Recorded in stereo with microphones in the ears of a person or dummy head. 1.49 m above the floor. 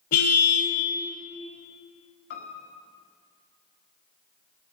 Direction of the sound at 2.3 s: 45° left (ahead or behind).